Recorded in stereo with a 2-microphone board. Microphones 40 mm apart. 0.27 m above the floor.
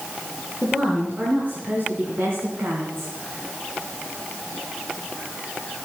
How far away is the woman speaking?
About 4.5 m.